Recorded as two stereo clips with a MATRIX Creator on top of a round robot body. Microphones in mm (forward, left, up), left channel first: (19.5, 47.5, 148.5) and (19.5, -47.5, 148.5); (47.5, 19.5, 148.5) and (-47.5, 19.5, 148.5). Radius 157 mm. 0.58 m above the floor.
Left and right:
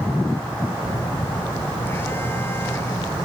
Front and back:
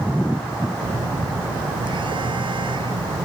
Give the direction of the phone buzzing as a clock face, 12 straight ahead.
7 o'clock.